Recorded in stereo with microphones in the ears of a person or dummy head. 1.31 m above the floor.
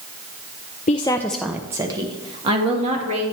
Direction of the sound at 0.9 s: 35° left (ahead or behind).